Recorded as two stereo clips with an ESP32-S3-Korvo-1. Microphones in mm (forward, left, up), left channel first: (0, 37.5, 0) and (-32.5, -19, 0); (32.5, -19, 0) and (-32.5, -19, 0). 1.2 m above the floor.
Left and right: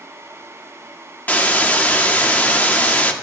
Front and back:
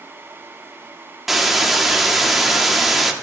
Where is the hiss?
95° left, 0.8 m.